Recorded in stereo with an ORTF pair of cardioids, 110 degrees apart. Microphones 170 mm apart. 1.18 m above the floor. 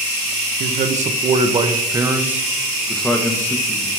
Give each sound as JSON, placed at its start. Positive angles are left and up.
{"t": 0.6, "sound": "a man speaking", "azimuth_deg": -55, "distance_m": 1.2}